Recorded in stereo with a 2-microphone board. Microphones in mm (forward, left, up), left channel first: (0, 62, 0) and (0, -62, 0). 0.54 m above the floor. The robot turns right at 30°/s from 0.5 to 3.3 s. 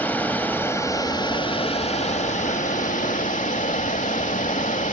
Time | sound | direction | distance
0.0 | running water | 15° left | 1.0 m